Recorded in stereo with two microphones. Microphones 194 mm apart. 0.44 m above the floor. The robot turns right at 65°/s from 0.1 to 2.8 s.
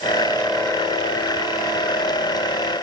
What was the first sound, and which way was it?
Only background noise.